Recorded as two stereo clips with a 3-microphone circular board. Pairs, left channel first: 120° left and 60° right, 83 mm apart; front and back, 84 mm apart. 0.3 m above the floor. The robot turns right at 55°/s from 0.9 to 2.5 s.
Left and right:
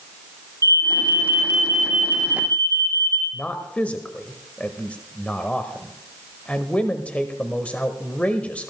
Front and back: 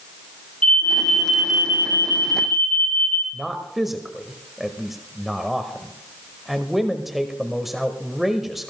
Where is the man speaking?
100° left, 1.1 m.